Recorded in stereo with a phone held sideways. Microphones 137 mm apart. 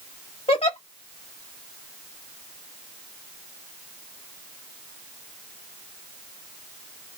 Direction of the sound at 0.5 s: 50° left (ahead or behind).